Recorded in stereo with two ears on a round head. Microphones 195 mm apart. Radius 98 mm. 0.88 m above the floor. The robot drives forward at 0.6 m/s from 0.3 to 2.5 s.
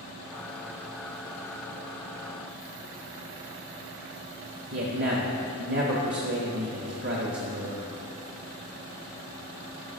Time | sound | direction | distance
4.7 | a man speaking | 50° right (ahead or behind) | 1.0 m